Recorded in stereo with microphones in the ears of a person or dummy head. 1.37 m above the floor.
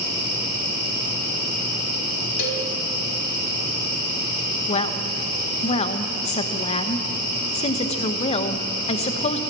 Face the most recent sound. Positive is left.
turn(degrees=30)  # may be behind; listen again after turning